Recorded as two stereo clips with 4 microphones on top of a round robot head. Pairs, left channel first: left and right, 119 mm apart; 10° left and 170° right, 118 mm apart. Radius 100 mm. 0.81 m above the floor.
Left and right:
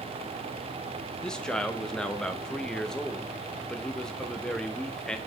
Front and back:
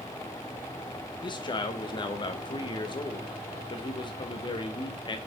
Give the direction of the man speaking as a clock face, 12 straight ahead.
12 o'clock.